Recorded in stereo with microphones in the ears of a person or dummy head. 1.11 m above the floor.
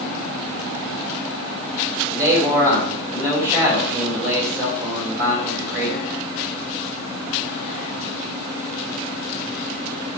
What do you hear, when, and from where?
2.1 s a man speaking: 15° right (ahead or behind), 4 m